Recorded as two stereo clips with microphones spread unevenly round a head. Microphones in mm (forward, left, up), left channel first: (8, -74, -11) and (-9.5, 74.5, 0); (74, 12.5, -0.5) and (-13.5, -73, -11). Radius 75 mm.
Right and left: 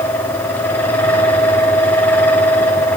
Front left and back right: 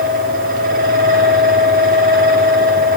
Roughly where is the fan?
Behind.